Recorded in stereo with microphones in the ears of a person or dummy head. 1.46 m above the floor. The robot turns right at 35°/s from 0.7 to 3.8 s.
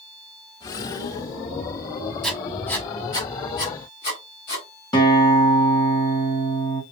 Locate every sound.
2.2 s writing: 5° left (ahead or behind), 1.1 m; by 4.7 s 30° left (ahead or behind), 1.1 m
4.9 s a guitar: 25° left (ahead or behind), 1.2 m